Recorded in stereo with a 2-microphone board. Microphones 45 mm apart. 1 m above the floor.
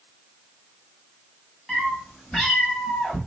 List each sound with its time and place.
1.7 s a cat meowing: 5° left (ahead or behind), 1.6 m; by 3.2 s 20° left (ahead or behind), 0.8 m